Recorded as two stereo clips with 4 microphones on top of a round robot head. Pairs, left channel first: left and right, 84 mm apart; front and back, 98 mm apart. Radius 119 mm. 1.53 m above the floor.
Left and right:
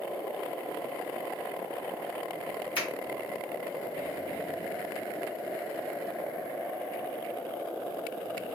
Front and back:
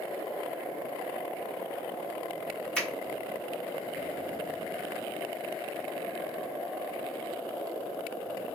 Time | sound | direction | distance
2.8 | a finger snap | 80° left | 0.8 m